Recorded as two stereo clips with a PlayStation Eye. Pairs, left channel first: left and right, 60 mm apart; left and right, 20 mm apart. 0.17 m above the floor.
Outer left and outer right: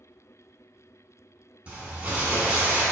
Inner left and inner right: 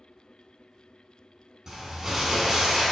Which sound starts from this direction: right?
Crumpling, at 1.7 s.